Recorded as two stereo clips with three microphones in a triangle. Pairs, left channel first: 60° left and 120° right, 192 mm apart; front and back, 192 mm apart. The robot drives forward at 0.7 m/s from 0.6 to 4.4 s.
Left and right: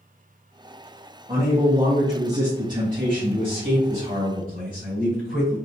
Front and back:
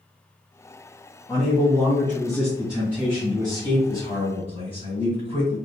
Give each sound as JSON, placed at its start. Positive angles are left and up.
{"t": 1.3, "sound": "a man speaking", "azimuth_deg": -60, "distance_m": 2.0}